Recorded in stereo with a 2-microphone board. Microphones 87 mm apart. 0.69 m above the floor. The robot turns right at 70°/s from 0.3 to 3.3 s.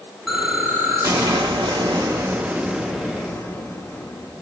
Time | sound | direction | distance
0.3 | an explosion | straight behind | 0.9 m